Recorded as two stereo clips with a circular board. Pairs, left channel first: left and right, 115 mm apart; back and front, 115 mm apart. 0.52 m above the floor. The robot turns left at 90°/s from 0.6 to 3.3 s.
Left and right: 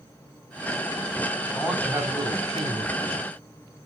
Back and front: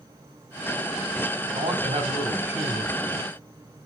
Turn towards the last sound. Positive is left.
turn(degrees=-145)